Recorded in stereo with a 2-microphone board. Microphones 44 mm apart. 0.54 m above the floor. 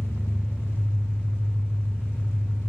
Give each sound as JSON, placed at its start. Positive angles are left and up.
{"t": 0.0, "sound": "an engine running", "side_deg": 80, "distance_m": 1.6}